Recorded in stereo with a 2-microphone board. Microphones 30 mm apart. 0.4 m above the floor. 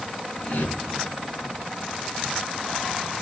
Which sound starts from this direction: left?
A whoosh, at 0.4 s.